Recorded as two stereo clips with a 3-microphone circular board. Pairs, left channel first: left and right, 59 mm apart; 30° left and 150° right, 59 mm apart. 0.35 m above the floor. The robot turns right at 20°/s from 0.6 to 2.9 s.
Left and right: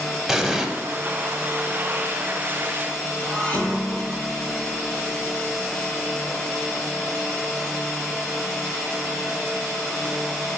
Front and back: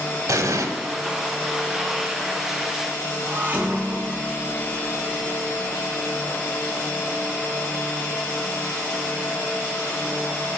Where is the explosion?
175° right, 0.7 m.